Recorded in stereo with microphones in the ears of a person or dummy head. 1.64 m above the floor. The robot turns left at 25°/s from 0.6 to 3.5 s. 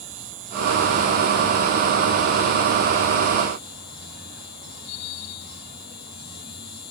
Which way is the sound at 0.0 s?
135° right.